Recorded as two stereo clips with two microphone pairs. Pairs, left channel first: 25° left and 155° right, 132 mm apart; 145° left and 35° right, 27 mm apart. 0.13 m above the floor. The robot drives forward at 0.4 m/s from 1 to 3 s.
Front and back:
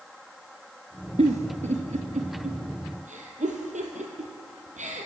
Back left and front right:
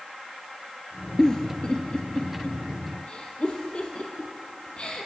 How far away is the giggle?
About 0.6 m.